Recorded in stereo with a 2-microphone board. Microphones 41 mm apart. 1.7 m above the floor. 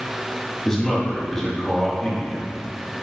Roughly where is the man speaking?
Centre.